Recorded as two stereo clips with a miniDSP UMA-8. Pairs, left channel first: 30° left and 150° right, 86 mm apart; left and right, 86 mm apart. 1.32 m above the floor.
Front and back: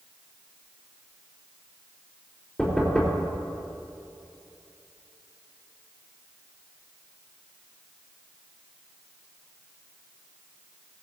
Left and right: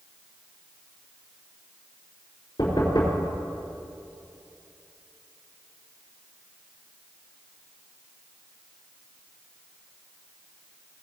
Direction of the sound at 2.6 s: 115° left.